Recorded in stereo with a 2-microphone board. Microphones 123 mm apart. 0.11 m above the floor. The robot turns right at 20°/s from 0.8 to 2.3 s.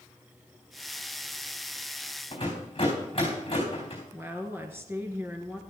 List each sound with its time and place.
2.3 s a rattle: 40° left (ahead or behind), 4 m
4.1 s a woman speaking: 20° right (ahead or behind), 1.5 m